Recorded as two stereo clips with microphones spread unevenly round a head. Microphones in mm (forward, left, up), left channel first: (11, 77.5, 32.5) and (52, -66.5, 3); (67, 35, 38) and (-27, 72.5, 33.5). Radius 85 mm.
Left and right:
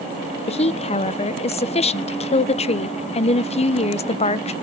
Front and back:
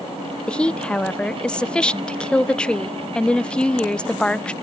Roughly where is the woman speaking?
Ahead left.